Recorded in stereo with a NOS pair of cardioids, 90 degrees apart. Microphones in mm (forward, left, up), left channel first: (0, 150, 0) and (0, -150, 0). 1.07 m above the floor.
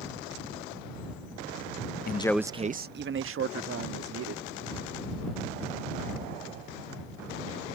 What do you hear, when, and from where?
2.1 s a man speaking: 35° left; by 4.5 s 55° right